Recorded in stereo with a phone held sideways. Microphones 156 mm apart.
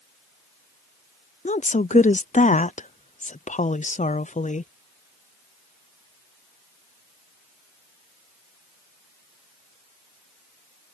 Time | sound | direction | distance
1.4 | a woman speaking | 50° left (ahead or behind) | ?